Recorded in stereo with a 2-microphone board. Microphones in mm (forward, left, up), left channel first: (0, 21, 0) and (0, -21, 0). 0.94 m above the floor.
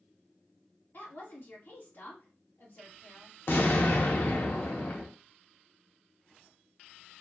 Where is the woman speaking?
55° left (ahead or behind), 1.8 m.